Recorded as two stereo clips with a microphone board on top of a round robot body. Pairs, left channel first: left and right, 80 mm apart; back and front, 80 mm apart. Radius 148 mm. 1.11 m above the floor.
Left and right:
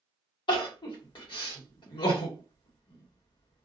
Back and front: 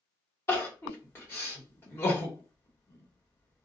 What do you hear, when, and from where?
0.5 s crying: 115° left, 1.2 m